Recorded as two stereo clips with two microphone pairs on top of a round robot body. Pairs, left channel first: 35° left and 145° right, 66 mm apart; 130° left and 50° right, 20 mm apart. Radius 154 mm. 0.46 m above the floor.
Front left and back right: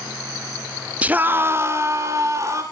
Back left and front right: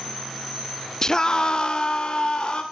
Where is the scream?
160° left, 1.2 m; by 2.6 s 175° left, 3 m.